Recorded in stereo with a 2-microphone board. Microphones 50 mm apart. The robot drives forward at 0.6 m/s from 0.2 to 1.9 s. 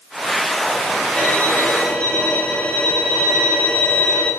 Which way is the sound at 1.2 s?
20° left (ahead or behind).